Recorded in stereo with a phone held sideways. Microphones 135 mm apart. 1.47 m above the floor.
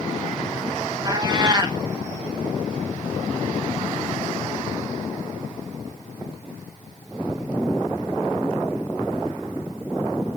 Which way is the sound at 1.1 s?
30° right (ahead or behind).